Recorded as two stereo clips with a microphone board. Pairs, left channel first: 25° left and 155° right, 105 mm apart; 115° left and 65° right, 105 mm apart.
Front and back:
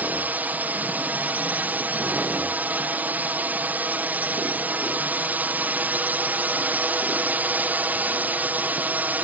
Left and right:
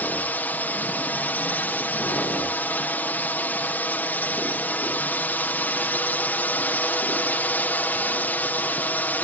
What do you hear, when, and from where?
0.0 s a drone: 155° left